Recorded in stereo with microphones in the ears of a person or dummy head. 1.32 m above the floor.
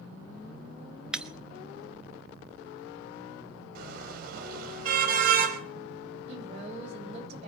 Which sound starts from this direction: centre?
Breaking glass, at 1.1 s.